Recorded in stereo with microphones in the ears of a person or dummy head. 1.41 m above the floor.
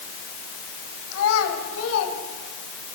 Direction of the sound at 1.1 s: 80° left.